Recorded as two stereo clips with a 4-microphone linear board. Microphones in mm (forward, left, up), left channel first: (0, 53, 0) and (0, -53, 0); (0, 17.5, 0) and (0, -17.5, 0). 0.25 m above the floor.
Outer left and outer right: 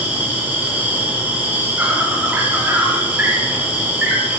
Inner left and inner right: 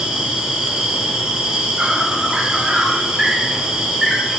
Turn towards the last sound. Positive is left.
turn(degrees=-15)  # may be behind; listen again after turning